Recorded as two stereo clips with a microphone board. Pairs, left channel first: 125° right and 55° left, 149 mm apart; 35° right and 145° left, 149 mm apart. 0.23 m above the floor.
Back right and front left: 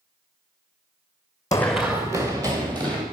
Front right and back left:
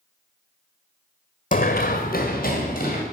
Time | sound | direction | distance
1.5 | running footsteps | 60° right | 0.5 m